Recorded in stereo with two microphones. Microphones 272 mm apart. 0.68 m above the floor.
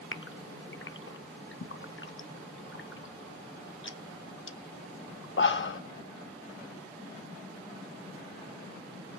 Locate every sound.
0.1 s a gasp: 45° left (ahead or behind), 0.5 m